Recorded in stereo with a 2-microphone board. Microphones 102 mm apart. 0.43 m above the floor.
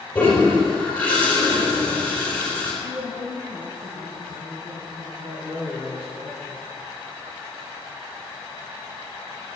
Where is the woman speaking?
55° right (ahead or behind), 3.5 m.